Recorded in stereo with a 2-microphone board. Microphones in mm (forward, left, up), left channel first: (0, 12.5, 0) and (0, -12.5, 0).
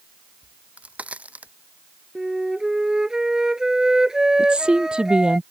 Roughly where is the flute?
Right.